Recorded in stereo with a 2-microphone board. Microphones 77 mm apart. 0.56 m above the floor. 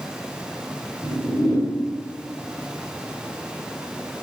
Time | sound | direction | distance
1.0 | a whoosh | 5° right (ahead or behind) | 6 m